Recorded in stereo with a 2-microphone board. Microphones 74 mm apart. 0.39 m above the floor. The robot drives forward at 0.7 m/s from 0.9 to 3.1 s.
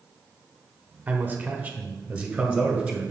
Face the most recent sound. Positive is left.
turn(degrees=-10)  # may be behind; listen again after turning